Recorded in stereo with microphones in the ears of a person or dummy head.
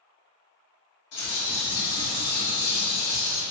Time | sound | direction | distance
1.1 | a bird | 55° left (ahead or behind) | 1.7 m